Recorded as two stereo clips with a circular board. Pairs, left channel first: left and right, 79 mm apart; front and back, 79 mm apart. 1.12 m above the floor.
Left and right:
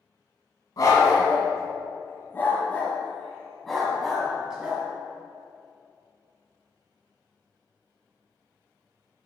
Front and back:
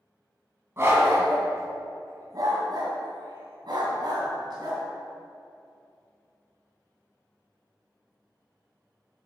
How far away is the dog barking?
About 2 m.